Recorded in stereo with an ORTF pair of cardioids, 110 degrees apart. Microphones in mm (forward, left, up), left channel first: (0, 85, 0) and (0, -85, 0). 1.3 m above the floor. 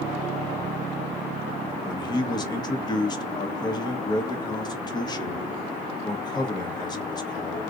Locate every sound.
1.8 s a man speaking: 25° left, 1.0 m